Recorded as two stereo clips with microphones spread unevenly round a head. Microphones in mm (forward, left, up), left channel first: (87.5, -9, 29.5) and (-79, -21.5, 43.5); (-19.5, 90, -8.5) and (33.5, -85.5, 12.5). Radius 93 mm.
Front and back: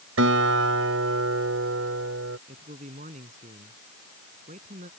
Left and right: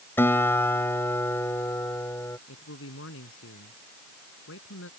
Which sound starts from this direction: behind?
A guitar, at 0.2 s.